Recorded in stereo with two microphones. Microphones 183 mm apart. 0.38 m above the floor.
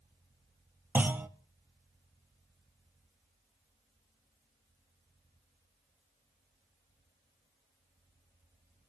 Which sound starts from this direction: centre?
A clunk, at 0.9 s.